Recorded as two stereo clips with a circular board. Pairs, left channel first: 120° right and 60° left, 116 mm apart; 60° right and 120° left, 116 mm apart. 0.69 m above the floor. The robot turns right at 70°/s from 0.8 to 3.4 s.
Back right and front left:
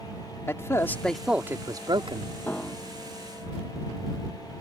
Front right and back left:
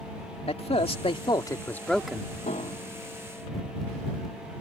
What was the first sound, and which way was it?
A man speaking, 55° right.